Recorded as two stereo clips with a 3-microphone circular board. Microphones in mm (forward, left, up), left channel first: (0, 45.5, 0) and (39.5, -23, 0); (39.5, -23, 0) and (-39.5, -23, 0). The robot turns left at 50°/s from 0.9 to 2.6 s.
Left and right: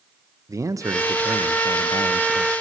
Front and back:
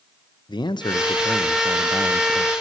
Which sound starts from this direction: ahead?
A man speaking, at 0.5 s.